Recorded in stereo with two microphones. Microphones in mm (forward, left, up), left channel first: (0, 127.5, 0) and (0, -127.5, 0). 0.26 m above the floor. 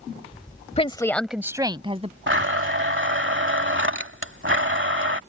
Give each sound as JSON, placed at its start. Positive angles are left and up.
{"t": 0.8, "sound": "a woman speaking", "side_deg": 25}
{"t": 2.3, "sound": "a blender", "side_deg": -50}